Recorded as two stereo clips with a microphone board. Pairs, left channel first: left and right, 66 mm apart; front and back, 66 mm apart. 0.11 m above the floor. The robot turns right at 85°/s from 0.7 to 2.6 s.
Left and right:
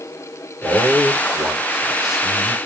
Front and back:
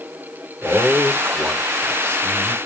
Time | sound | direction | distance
0.6 | a man speaking | 130° right | 1.3 m